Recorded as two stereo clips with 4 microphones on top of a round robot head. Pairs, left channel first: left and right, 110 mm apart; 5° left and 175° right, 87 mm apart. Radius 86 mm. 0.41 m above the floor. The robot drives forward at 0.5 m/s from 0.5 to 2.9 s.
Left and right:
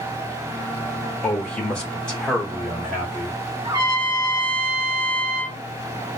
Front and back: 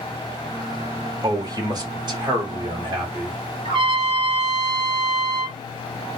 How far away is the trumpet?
About 1.2 m.